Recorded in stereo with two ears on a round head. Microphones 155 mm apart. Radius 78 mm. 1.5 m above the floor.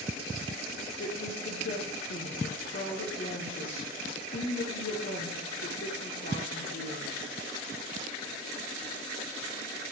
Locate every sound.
1.0 s a woman speaking: 50° left (ahead or behind), 0.9 m